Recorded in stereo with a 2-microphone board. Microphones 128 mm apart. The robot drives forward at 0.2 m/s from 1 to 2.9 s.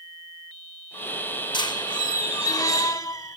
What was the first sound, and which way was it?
A squeak, 35° left (ahead or behind).